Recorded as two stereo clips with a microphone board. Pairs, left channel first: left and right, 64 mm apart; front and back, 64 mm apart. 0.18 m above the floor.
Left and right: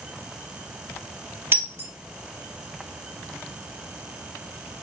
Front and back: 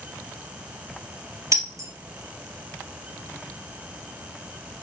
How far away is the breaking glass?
About 2.5 m.